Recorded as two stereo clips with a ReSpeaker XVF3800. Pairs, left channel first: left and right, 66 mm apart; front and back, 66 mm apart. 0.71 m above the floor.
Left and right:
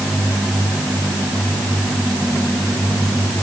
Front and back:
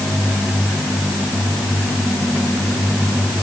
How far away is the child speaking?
No child speaking in this recording.